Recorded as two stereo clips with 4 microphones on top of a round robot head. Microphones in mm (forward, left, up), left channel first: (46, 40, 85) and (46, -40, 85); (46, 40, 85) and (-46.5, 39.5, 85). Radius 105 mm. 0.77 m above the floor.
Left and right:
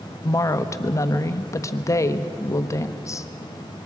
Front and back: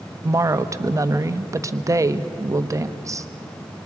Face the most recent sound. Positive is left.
turn(degrees=130)